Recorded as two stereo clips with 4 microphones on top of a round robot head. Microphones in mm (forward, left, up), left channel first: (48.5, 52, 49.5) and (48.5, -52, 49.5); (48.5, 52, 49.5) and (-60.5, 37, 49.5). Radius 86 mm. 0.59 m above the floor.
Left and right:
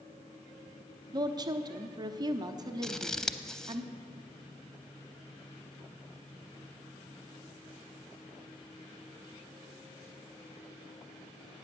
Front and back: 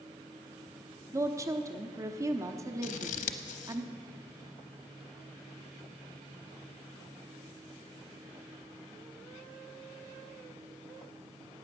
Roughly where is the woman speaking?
Behind right.